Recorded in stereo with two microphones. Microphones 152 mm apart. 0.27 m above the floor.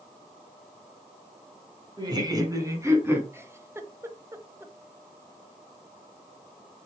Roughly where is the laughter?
Right.